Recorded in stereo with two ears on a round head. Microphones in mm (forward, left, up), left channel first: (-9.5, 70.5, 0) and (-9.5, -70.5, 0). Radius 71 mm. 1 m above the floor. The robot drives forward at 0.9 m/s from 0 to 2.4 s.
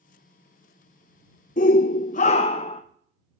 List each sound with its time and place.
1.6 s a shout: 50° left (ahead or behind), 0.6 m; by 2.8 s 40° left (ahead or behind), 0.7 m